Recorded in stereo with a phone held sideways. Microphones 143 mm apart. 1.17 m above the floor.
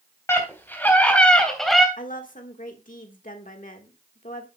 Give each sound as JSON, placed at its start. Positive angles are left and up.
{"t": 0.3, "sound": "a scream", "side_deg": 20, "distance_m": 4.5}
{"t": 2.0, "sound": "a woman speaking", "side_deg": 70, "distance_m": 1.5}